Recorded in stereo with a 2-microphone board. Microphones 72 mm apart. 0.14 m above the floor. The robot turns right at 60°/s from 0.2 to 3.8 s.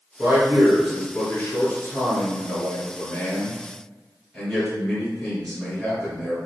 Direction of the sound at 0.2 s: 40° right.